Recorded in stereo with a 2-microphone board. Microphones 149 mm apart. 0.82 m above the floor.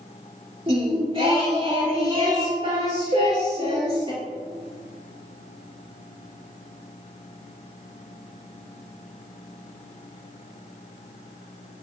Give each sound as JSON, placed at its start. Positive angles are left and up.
{"t": 0.7, "sound": "singing", "side_deg": -40, "distance_m": 2.0}
{"t": 3.1, "sound": "a cowbell", "side_deg": -75, "distance_m": 1.6}